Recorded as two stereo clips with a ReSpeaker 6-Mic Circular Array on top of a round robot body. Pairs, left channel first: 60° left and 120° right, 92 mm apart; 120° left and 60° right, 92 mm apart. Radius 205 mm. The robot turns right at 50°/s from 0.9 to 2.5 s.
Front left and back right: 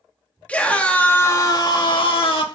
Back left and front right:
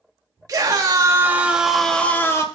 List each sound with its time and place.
0.5 s a scream: 15° right, 2.5 m; by 2.4 s 65° left, 2.5 m